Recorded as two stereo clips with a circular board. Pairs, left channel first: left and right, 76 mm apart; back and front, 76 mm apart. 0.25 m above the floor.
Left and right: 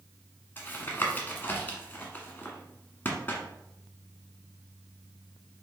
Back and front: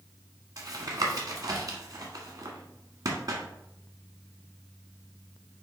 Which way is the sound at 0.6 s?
30° left.